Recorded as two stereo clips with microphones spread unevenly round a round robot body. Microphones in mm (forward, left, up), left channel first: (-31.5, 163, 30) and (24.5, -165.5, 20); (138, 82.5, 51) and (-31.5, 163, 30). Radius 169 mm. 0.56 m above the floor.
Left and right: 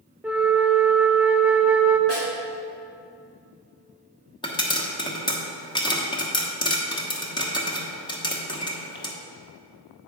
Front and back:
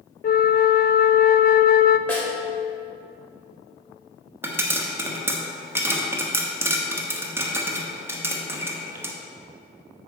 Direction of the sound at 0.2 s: 5° left.